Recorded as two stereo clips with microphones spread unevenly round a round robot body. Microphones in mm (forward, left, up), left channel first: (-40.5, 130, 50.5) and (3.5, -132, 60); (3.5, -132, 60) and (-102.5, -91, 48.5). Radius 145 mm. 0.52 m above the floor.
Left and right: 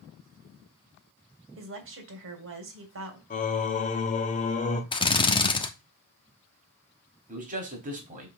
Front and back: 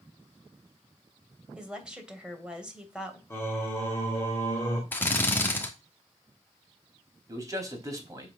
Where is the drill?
50° left, 1.2 m.